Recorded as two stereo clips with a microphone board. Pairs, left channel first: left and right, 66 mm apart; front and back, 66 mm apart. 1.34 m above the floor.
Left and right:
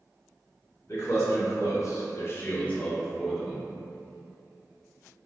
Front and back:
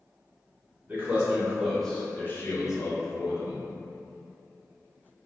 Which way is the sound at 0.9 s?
120° left.